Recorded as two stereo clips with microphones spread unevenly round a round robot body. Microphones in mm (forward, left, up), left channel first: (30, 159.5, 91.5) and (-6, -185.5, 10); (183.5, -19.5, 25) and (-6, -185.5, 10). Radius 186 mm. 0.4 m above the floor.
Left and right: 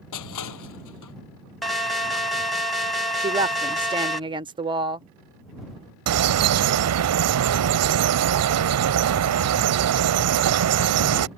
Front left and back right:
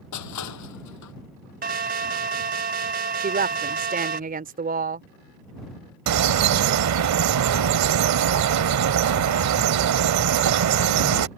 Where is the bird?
140° right.